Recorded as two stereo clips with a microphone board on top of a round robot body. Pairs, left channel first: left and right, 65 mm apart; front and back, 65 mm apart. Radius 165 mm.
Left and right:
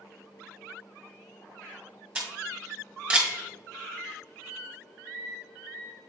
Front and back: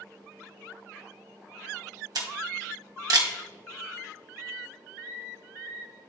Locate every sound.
2.1 s a camera shutter: 165° right, 1.8 m